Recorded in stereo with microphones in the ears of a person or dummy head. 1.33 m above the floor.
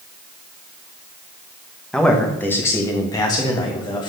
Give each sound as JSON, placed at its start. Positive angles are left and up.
{"t": 1.9, "sound": "a man speaking", "side_deg": 5, "distance_m": 1.4}